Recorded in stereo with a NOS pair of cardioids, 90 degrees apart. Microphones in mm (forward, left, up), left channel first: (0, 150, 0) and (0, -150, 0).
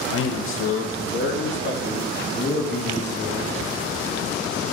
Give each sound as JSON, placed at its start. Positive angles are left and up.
{"t": 0.1, "sound": "a man speaking", "azimuth_deg": 50, "distance_m": 1.3}